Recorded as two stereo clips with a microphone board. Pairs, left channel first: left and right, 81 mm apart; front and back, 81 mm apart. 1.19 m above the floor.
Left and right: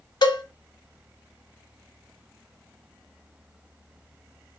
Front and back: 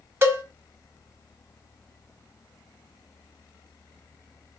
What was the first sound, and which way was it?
A cowbell, 120° left.